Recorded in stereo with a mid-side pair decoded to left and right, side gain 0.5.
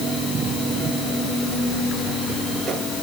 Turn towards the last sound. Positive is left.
No sound to turn to.